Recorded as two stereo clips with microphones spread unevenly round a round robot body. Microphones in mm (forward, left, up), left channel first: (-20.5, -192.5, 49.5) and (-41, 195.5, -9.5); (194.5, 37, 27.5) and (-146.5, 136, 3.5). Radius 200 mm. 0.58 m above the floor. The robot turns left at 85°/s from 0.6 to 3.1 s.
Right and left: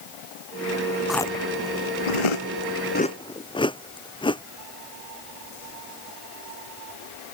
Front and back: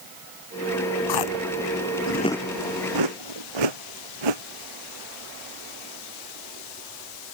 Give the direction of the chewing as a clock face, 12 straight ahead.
12 o'clock.